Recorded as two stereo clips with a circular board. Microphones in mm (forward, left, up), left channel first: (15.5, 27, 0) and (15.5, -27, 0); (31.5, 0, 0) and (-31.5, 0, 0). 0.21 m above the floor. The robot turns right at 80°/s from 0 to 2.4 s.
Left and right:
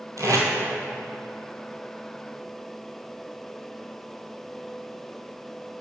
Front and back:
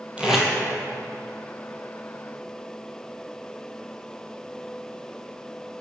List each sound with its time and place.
0.2 s tape being pulled: 110° right, 1.1 m; by 0.5 s 85° right, 1.1 m